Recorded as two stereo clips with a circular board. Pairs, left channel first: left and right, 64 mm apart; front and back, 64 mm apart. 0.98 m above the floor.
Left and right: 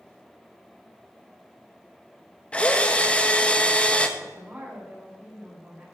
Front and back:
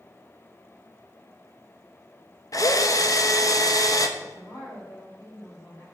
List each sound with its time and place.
2.5 s a drill: 20° left, 1.0 m
4.2 s a woman speaking: 30° right, 4 m